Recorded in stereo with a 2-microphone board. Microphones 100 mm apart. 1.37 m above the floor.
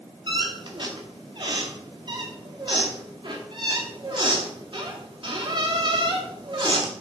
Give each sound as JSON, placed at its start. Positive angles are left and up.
{"t": 0.3, "sound": "a squeak", "side_deg": -50, "distance_m": 1.7}